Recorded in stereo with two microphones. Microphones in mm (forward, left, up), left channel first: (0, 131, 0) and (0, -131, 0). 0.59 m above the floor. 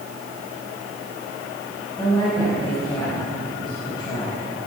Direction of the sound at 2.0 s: 15° left (ahead or behind).